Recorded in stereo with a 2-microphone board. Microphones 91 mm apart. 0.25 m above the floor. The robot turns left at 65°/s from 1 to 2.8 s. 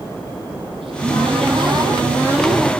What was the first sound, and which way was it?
A cupboard door, 75° right.